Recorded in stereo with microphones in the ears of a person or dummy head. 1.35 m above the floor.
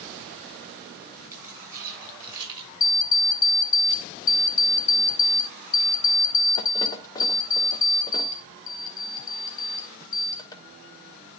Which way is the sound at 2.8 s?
20° left (ahead or behind).